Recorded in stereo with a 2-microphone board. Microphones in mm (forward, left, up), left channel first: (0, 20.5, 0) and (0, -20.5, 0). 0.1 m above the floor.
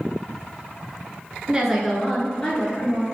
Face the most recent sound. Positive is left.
turn(degrees=45)  # may be behind; listen again after turning